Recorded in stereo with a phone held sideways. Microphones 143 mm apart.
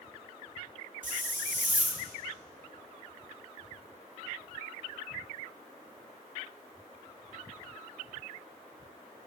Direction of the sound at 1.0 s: 65° right (ahead or behind).